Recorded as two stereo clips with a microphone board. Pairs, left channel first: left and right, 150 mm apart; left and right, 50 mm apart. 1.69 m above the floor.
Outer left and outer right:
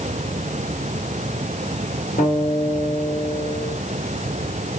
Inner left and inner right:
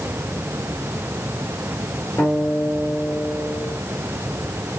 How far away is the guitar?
About 4 m.